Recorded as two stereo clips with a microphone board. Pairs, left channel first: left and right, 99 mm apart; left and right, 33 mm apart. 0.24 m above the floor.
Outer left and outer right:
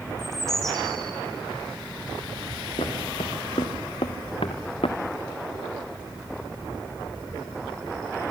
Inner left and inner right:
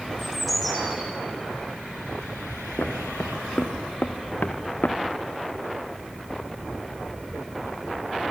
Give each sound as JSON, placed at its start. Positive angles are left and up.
{"t": 0.2, "sound": "a bird", "side_deg": 5, "distance_m": 4.5}
{"t": 2.8, "sound": "footsteps", "side_deg": 85, "distance_m": 3.5}